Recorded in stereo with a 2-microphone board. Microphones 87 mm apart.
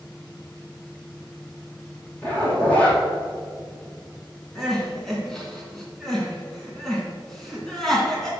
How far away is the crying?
About 2.5 m.